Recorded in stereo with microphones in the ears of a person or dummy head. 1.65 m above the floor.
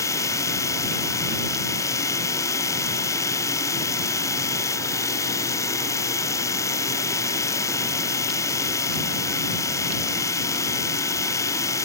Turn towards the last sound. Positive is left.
turn(degrees=20)  # may be behind; listen again after turning